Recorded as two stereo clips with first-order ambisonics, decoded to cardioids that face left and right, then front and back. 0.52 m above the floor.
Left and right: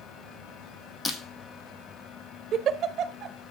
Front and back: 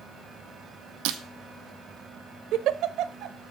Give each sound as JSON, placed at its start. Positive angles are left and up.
{"t": 1.1, "sound": "breaking glass", "azimuth_deg": 165, "distance_m": 1.6}
{"t": 2.5, "sound": "a giggle", "azimuth_deg": -140, "distance_m": 0.8}